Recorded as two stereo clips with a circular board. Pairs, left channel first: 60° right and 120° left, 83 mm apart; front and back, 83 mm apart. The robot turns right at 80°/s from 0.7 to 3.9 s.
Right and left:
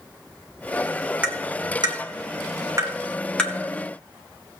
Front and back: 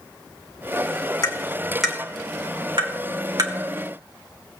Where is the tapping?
45° left, 2 m; by 3.5 s 135° right, 2 m.